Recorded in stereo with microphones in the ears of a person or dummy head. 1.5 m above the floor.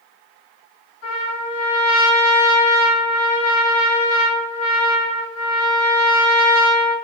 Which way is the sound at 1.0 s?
75° left (ahead or behind).